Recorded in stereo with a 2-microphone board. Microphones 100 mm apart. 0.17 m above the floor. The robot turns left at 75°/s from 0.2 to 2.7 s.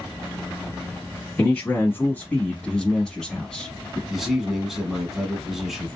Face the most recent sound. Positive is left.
turn(degrees=-5)  # may be behind; listen again after turning